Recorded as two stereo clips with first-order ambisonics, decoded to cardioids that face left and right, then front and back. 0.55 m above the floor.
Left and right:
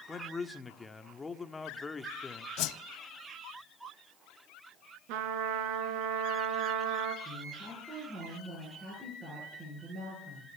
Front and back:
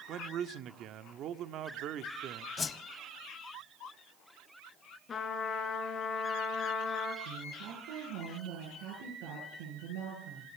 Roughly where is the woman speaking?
Behind.